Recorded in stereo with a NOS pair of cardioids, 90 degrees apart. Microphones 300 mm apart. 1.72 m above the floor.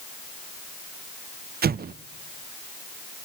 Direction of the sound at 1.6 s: 30° right.